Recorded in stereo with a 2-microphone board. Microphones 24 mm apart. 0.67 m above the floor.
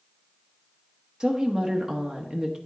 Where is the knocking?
No knocking in this recording.